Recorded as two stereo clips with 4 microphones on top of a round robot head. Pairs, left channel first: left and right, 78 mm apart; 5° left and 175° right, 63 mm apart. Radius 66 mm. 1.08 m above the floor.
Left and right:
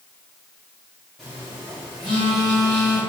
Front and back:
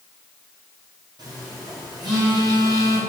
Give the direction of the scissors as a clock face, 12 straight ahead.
No scissors in this recording.